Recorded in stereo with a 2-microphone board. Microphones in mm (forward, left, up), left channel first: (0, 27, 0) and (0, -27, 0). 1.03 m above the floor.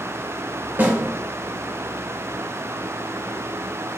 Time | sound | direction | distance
0.8 | a snare drum | 30° right (ahead or behind) | 4 m